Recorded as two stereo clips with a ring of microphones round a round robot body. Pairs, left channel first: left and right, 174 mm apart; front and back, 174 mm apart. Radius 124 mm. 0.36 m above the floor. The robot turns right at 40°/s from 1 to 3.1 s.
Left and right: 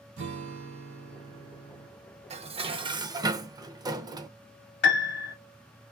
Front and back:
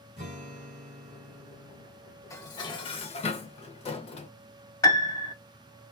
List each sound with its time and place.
0.2 s a guitar: 110° right, 1.3 m; by 1.9 s 75° right, 1.3 m
2.3 s dishes clattering: 65° right, 0.6 m; by 4.3 s 35° right, 0.6 m
4.8 s a piano: 75° left, 0.6 m